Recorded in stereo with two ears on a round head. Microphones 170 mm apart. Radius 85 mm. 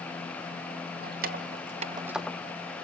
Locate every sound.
1.0 s keys jangling: 50° right (ahead or behind), 1.7 m; by 2.4 s 15° left (ahead or behind), 0.8 m